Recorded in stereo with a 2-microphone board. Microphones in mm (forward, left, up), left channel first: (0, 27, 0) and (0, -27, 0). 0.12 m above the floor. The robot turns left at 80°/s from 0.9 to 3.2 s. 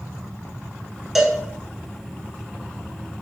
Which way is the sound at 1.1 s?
5° right (ahead or behind).